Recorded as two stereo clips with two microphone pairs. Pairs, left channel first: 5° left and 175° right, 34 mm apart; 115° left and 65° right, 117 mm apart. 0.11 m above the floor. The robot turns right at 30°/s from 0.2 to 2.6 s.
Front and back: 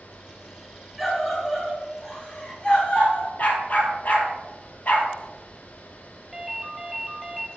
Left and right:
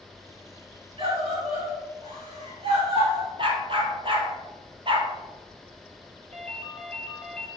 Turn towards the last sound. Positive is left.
turn(degrees=-90)